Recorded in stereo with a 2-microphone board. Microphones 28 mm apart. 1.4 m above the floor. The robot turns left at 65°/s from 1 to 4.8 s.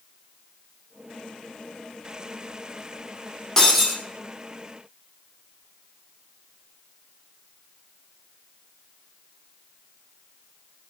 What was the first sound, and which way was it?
Breaking glass, 20° left (ahead or behind).